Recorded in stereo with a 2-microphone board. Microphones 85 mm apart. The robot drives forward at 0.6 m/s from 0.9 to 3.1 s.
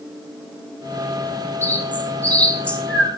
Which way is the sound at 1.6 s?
25° left (ahead or behind).